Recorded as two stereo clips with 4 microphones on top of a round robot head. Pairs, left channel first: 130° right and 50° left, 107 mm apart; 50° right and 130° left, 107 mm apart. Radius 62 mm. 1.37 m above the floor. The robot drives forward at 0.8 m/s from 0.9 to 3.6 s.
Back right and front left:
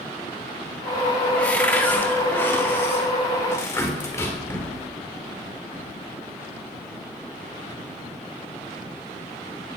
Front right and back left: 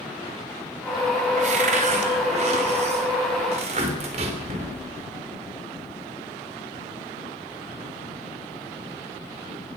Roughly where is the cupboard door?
Behind left.